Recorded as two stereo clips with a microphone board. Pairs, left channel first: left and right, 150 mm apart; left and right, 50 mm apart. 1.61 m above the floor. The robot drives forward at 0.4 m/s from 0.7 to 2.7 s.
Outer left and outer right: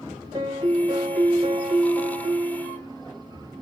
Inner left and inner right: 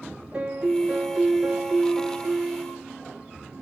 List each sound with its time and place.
0.3 s a piano: 20° right (ahead or behind), 1.5 m; by 2.9 s 30° right (ahead or behind), 1.1 m